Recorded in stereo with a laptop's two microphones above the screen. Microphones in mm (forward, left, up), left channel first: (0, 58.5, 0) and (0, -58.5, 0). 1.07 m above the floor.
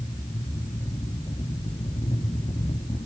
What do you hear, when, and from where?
0.0 s a fan: 55° left (ahead or behind), 3 m